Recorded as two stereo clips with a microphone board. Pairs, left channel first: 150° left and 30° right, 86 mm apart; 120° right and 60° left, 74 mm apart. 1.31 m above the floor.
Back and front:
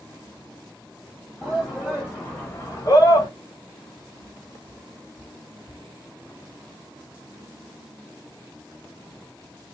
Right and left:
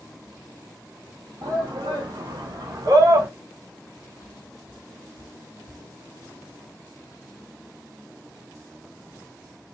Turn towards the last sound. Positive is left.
turn(degrees=110)